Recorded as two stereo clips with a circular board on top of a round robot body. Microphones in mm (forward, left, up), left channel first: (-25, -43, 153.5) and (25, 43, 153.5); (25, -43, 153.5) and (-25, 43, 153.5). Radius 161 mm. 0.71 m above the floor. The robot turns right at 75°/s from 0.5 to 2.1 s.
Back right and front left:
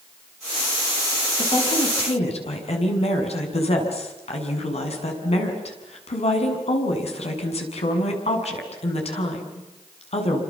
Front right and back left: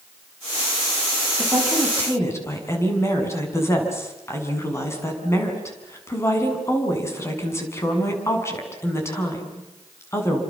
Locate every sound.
1.4 s a woman speaking: 175° right, 6.5 m; by 10.4 s 125° right, 6.5 m